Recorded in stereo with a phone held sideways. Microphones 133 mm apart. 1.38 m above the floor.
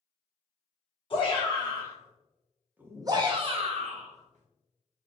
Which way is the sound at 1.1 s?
40° left (ahead or behind).